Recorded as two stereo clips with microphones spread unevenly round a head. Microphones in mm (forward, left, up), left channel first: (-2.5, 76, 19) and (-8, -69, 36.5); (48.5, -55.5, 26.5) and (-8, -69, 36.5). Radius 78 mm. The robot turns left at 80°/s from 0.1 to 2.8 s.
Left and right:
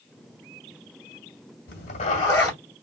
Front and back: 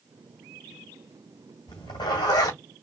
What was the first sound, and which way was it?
A zipper, 65° left.